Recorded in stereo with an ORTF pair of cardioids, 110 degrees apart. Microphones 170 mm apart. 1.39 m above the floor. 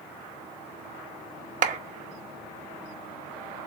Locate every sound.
1.6 s a clap: 45° right, 0.9 m